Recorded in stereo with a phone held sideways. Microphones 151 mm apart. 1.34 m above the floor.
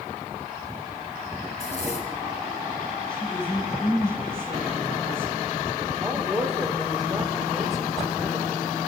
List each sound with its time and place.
1.5 s a zipper: 50° left (ahead or behind), 3.5 m
3.1 s a woman speaking: 5° left (ahead or behind), 9.5 m
6.0 s a woman speaking: centre (ahead or behind), 5.5 m